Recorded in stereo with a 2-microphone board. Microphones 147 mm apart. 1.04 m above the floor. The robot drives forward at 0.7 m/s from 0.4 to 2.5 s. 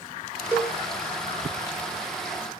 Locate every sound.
0.5 s a cowbell: 10° right (ahead or behind), 0.8 m